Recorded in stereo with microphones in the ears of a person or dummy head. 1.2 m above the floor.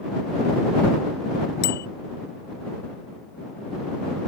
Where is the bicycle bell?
55° left (ahead or behind).